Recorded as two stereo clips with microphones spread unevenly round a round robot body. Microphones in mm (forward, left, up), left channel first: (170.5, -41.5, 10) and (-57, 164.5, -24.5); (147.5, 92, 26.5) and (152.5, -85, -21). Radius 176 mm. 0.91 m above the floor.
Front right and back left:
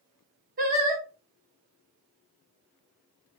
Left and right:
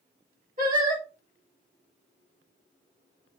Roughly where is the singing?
Behind right.